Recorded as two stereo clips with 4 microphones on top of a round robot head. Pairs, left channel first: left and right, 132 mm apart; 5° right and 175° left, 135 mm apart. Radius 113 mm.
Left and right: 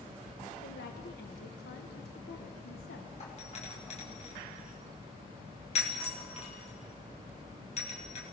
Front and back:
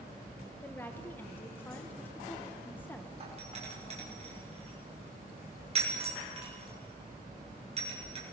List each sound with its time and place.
0.6 s a woman speaking: 70° left, 1.6 m
3.2 s a doorbell: 130° left, 7 m